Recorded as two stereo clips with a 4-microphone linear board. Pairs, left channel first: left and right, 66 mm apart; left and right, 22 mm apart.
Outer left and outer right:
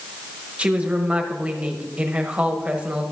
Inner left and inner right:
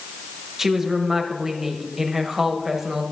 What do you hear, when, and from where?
0.6 s a woman speaking: 20° right (ahead or behind), 1.2 m